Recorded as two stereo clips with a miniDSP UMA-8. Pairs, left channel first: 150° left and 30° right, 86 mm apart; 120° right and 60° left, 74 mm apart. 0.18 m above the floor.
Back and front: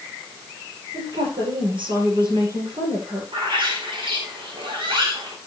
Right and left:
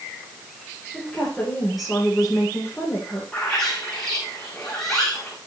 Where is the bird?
35° right, 4.5 m.